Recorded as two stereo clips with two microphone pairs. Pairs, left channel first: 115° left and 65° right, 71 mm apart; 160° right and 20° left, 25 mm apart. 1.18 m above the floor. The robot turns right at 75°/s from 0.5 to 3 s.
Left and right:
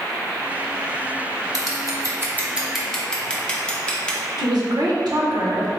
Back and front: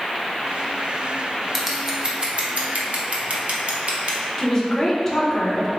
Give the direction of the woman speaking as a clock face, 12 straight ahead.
3 o'clock.